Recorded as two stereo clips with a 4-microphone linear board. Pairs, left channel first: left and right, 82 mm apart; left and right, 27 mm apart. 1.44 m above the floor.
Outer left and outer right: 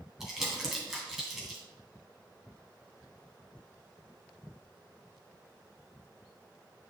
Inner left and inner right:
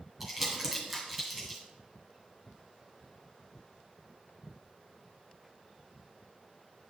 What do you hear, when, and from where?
0.2 s crumpling: 5° right (ahead or behind), 2 m